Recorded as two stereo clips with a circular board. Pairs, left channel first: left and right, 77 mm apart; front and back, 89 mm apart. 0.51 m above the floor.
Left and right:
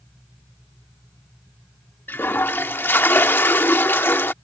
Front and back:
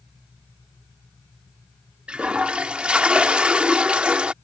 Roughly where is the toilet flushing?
Behind left.